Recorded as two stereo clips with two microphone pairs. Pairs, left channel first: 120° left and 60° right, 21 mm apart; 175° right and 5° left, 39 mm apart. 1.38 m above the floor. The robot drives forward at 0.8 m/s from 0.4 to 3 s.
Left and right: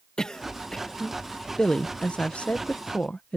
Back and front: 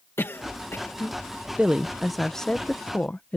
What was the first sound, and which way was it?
A cough, 175° left.